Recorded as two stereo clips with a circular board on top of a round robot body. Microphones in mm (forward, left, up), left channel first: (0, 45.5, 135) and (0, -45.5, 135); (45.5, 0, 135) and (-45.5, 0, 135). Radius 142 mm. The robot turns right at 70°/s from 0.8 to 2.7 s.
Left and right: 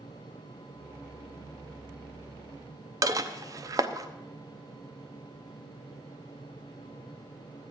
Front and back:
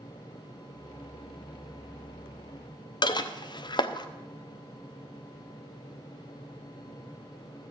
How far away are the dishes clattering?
About 0.9 m.